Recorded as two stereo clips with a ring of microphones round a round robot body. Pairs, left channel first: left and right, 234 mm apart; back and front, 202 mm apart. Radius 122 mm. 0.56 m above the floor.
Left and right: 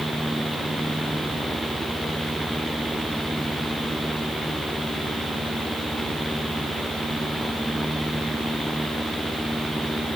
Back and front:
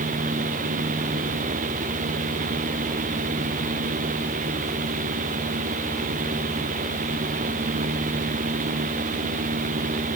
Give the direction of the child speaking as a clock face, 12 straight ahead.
I don't hear a child speaking.